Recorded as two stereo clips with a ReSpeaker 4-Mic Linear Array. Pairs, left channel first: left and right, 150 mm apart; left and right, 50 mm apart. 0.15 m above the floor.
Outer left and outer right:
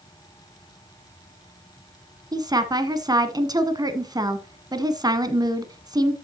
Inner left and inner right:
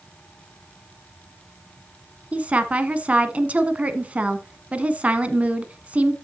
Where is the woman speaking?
25° right (ahead or behind), 1.1 m.